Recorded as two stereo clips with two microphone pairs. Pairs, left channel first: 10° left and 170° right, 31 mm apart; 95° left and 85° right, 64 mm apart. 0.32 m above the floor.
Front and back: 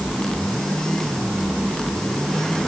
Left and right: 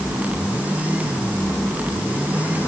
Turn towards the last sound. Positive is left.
No sound to turn to.